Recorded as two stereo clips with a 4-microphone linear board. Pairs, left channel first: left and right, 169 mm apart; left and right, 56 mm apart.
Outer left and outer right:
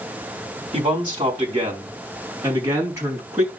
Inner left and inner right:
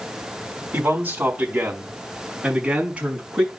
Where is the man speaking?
30° right (ahead or behind), 4 m; by 3.5 s 15° right (ahead or behind), 5.5 m.